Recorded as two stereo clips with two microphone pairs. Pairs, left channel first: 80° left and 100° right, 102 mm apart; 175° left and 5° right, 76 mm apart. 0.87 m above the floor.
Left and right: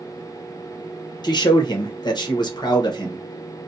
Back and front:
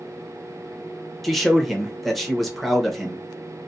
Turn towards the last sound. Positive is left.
turn(degrees=90)